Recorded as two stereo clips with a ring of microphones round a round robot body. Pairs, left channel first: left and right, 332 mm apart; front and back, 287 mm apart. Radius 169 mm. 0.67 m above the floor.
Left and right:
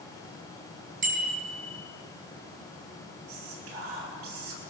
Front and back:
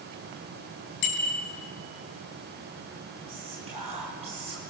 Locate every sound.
1.0 s a bicycle bell: 25° right, 4 m
3.3 s whispering: 105° right, 7 m